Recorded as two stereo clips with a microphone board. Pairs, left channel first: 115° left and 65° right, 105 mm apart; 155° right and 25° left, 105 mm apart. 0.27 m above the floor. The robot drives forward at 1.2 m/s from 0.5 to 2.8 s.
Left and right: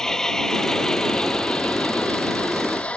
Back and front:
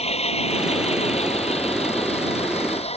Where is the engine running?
165° right; by 3.0 s 170° right.